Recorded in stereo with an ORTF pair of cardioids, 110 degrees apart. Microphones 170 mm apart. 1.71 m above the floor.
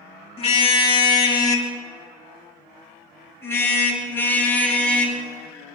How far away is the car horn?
About 3.5 m.